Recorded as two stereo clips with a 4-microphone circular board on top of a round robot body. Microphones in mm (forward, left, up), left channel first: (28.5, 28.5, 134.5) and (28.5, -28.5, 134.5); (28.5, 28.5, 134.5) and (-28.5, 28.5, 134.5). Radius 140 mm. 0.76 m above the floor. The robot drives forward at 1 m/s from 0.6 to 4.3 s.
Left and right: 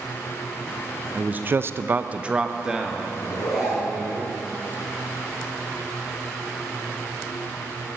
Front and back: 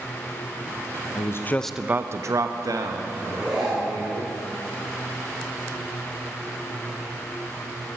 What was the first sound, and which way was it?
A man speaking, 20° right.